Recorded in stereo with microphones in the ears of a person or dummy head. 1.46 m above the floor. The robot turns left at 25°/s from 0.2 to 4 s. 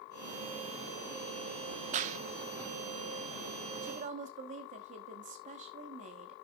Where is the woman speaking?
45° right (ahead or behind), 1.2 m; by 6.3 s 40° right (ahead or behind), 1.2 m.